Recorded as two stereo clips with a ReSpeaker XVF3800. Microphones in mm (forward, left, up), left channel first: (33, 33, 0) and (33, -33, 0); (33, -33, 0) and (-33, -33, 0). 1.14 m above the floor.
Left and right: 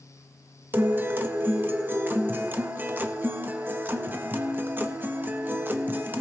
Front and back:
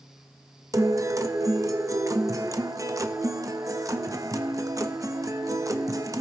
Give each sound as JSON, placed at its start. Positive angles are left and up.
{"t": 0.7, "sound": "a guitar", "azimuth_deg": -150, "distance_m": 0.7}